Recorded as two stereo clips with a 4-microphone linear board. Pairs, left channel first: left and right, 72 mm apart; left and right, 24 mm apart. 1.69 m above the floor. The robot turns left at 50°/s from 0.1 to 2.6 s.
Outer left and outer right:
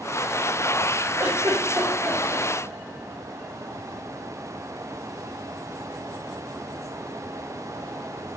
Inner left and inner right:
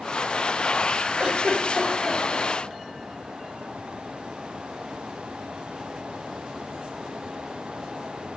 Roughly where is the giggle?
Right.